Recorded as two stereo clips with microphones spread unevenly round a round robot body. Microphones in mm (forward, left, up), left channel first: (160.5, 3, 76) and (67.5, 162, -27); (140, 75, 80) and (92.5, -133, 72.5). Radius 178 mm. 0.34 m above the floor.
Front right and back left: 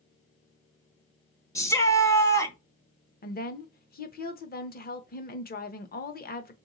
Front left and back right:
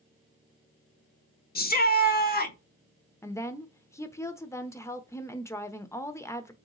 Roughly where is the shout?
Ahead left.